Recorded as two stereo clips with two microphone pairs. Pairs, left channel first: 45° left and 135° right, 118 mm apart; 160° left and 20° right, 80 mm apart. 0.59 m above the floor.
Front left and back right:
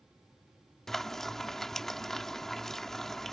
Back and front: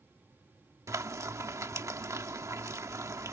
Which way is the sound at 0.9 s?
40° right.